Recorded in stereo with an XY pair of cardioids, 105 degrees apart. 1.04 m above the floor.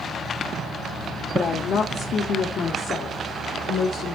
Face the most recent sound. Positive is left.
turn(degrees=70)